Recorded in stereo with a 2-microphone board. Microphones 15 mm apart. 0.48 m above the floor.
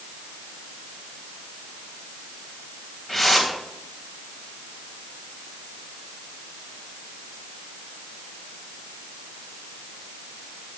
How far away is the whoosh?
About 3.5 m.